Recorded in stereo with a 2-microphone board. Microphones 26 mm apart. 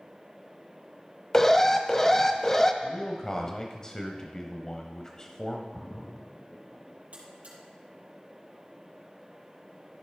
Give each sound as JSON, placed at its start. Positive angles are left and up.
{"t": 1.3, "sound": "an alarm", "side_deg": 20, "distance_m": 0.8}
{"t": 2.8, "sound": "a man speaking", "side_deg": 25, "distance_m": 0.9}
{"t": 5.7, "sound": "a splash", "side_deg": 65, "distance_m": 1.3}
{"t": 7.1, "sound": "a buzzer", "side_deg": -55, "distance_m": 4.0}